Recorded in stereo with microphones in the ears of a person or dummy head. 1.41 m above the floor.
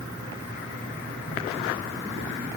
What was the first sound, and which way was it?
Only background noise.